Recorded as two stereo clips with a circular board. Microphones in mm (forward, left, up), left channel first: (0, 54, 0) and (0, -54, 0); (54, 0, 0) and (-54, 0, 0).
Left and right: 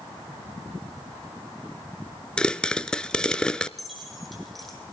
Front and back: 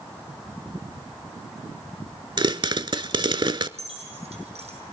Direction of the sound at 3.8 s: Straight behind.